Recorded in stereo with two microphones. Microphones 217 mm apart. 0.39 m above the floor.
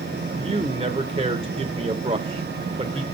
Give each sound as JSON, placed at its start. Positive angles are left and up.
{"t": 0.4, "sound": "a man speaking", "side_deg": -25, "distance_m": 1.0}